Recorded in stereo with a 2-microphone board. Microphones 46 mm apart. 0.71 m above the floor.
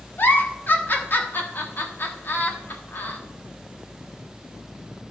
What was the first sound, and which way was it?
A giggle, 50° left (ahead or behind).